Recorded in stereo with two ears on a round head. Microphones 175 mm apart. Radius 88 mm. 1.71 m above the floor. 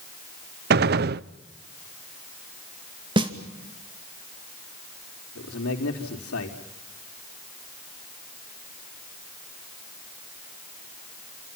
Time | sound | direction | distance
0.7 | a gunshot | 50° right (ahead or behind) | 0.5 m
3.2 | a snare drum | 25° right (ahead or behind) | 2.5 m
5.3 | a man speaking | 80° left | 4 m